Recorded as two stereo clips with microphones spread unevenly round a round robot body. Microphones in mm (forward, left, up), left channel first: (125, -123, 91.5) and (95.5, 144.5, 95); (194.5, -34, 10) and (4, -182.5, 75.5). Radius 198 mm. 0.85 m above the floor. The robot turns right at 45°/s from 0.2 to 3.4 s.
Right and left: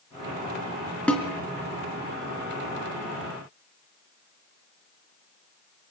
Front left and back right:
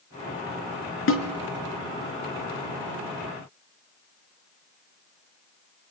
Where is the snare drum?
Straight ahead, 4 m; by 1.3 s 10° left, 4 m.